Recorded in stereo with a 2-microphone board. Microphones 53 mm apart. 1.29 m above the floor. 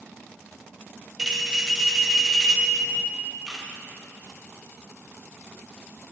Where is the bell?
10° right (ahead or behind), 0.5 m.